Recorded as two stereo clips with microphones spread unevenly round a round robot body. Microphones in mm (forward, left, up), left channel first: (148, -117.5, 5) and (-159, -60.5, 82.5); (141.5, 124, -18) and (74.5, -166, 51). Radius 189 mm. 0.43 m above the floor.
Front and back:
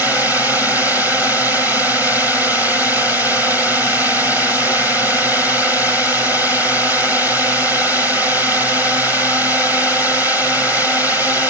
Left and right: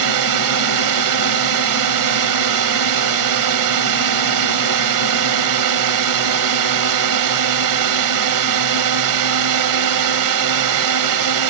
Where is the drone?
100° right.